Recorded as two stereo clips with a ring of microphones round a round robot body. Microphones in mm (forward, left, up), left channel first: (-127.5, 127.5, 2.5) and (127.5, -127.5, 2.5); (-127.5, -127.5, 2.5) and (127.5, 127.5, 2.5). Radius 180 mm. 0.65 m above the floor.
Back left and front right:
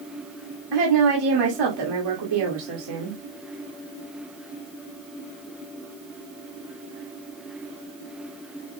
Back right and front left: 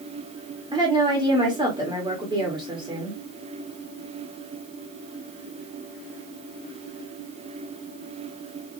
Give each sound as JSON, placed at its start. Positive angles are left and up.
{"t": 0.7, "sound": "a woman speaking", "azimuth_deg": -30, "distance_m": 2.0}